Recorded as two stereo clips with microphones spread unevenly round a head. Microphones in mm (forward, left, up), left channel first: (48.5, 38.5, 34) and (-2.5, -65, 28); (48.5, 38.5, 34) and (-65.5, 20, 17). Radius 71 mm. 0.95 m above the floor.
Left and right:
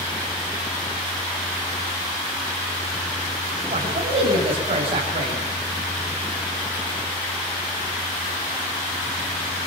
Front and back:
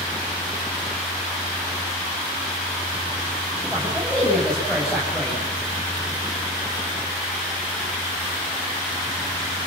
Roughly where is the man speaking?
Right.